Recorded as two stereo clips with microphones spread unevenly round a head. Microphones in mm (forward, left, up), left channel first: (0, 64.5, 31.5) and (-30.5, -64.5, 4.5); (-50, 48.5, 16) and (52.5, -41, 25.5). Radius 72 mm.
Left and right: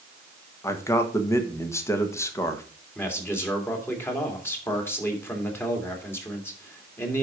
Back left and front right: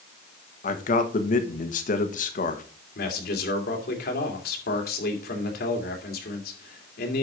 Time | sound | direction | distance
0.6 | a man speaking | 150° left | 1.3 m
3.0 | a man speaking | 150° left | 2 m